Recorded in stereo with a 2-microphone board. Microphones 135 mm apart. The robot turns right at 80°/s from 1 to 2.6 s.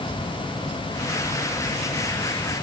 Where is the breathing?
No breathing in this recording.